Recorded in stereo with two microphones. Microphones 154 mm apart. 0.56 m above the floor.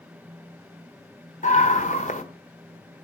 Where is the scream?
55° left (ahead or behind), 1.6 m.